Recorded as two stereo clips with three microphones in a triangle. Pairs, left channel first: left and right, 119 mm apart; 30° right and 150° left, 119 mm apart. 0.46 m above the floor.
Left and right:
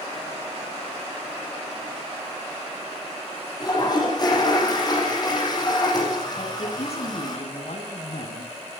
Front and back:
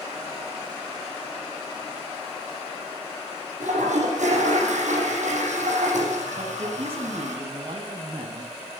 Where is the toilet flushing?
145° left, 8.5 m.